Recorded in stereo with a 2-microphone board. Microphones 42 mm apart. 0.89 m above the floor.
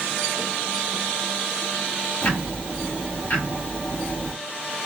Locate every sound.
2.2 s ticking: 45° left (ahead or behind), 1.4 m